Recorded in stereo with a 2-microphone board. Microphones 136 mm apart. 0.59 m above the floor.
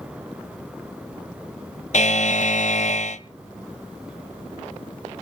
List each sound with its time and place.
1.9 s a buzzer: 60° left (ahead or behind), 0.7 m